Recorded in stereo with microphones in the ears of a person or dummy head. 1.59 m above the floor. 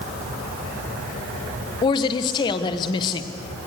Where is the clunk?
I don't hear a clunk.